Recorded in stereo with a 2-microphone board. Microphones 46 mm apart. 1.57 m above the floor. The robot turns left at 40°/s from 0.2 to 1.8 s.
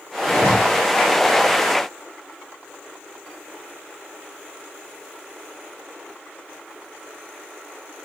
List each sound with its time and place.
0.3 s a zipper: 30° left (ahead or behind), 6.5 m; by 0.5 s 40° left (ahead or behind), 6.5 m